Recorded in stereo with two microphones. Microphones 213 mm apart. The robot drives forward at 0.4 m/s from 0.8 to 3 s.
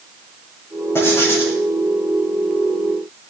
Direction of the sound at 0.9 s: 10° left (ahead or behind).